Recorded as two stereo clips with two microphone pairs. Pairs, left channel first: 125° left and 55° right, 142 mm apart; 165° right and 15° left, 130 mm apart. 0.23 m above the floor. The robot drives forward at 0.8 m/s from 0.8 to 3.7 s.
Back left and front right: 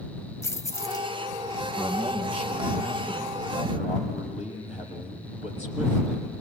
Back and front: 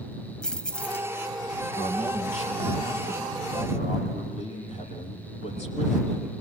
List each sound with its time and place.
0.4 s keys jangling: 130° left, 0.6 m; by 1.1 s 155° left, 0.7 m
1.8 s a man speaking: 155° left, 6 m; by 6.4 s 160° left, 7.5 m